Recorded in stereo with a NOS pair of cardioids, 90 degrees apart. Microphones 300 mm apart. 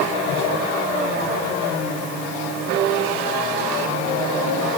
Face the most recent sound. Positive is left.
No sound to turn to.